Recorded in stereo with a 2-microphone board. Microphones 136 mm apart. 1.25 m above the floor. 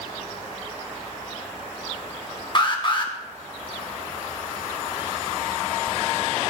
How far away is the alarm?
About 1.7 m.